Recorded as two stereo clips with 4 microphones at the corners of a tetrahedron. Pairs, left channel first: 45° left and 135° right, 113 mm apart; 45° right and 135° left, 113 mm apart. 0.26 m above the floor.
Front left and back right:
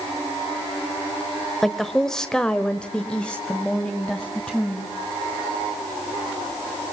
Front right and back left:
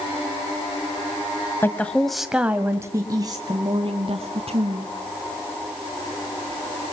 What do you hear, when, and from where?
1.6 s a woman speaking: 40° right, 1.5 m; by 4.9 s 125° left, 3 m